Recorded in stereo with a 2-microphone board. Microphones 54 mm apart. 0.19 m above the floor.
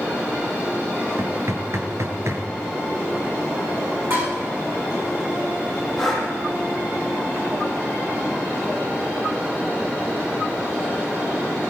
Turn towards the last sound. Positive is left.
turn(degrees=0)  # may be behind; listen again after turning